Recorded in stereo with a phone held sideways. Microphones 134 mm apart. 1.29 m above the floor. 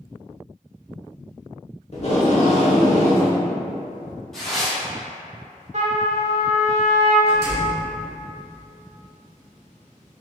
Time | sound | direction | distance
1.9 | tape being pulled | 50° left (ahead or behind) | 1.1 m
4.3 | tearing paper | 5° left (ahead or behind) | 1.7 m
5.7 | a trumpet | 55° right (ahead or behind) | 1.0 m
7.3 | a door slam | 25° right (ahead or behind) | 1.9 m